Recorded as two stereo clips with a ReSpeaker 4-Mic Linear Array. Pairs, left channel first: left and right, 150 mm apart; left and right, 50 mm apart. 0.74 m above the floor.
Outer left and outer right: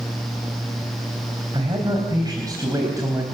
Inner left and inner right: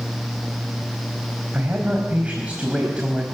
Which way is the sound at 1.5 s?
35° right (ahead or behind).